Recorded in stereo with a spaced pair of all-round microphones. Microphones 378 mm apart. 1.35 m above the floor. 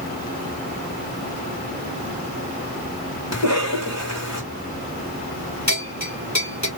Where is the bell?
45° left (ahead or behind), 2.5 m.